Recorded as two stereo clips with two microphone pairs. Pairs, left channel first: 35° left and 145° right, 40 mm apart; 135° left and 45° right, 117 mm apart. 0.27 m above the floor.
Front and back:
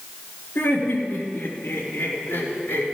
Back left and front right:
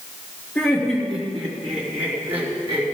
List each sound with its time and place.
0.6 s laughter: 55° left, 4 m; by 2.9 s 20° left, 3.5 m